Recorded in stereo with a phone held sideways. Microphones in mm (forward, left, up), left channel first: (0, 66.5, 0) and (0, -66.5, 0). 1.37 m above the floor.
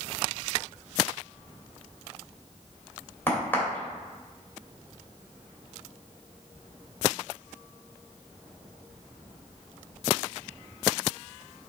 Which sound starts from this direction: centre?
A crack, at 3.3 s.